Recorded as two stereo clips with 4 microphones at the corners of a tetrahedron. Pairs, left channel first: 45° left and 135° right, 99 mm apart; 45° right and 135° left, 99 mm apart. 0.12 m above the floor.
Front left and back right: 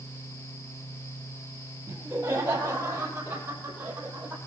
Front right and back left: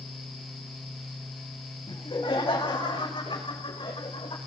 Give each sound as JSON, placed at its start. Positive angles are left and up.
{"t": 1.9, "sound": "laughter", "azimuth_deg": -70, "distance_m": 4.5}